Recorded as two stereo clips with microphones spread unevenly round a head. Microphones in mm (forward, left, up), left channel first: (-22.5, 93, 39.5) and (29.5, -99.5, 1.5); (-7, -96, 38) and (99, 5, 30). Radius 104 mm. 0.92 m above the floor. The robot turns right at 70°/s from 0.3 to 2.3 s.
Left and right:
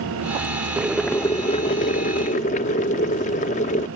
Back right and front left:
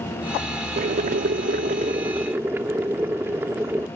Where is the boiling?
15° left; by 3.9 s 125° left.